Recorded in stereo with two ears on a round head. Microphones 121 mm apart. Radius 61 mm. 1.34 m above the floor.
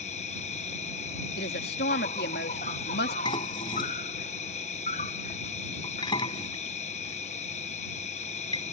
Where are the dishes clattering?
35° left (ahead or behind).